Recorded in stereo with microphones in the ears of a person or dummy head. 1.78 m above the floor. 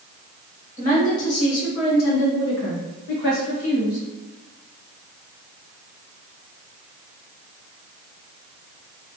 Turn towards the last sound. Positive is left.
turn(degrees=50)  # may be behind; listen again after turning